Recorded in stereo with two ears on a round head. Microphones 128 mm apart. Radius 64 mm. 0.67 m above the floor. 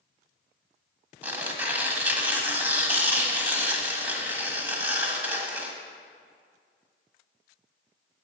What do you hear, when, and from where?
1.2 s tearing paper: 10° right (ahead or behind), 1.4 m